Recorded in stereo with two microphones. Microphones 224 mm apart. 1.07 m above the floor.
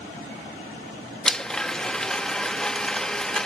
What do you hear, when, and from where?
1.2 s a blender: 5° left (ahead or behind)